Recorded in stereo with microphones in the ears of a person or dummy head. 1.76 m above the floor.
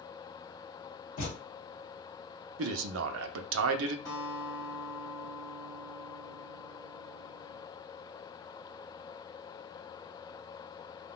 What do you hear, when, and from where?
1.2 s a thud: 45° left (ahead or behind), 1.7 m
2.6 s a man speaking: 75° right (ahead or behind), 0.5 m
4.0 s a guitar: 15° left (ahead or behind), 1.8 m